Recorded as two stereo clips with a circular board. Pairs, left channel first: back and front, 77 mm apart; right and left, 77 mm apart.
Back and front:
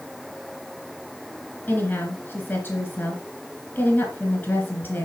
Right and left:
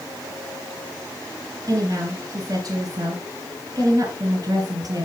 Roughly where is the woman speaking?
Behind left.